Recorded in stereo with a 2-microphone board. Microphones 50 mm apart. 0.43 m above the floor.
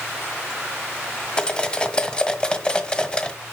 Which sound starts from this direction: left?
Cutlery clinking, at 1.4 s.